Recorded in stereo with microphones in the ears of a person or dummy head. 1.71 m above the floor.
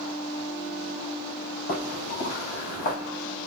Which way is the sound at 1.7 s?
45° left (ahead or behind).